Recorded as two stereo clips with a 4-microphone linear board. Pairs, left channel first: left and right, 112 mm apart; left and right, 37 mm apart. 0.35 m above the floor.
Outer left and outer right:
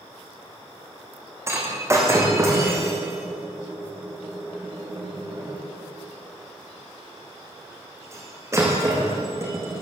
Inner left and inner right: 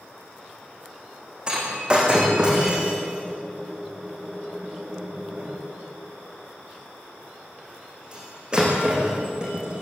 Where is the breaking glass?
25° right (ahead or behind), 7 m.